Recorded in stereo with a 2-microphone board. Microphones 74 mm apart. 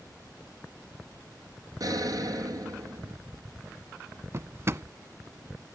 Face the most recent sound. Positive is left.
turn(degrees=-35)  # may be behind; listen again after turning